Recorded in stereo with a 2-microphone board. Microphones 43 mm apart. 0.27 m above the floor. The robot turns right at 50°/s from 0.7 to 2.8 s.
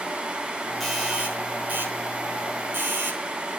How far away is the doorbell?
About 5.5 m.